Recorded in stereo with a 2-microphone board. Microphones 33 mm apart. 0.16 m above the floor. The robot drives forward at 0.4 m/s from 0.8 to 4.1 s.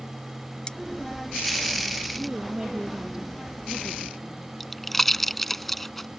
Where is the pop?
5° left (ahead or behind).